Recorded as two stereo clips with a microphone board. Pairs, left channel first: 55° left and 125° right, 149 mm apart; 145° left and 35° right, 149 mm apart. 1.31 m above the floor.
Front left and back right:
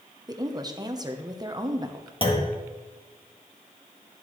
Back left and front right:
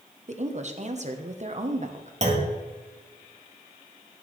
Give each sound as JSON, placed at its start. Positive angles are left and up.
{"t": 0.3, "sound": "a woman speaking", "azimuth_deg": -65, "distance_m": 1.0}
{"t": 2.2, "sound": "a clunk", "azimuth_deg": 5, "distance_m": 1.5}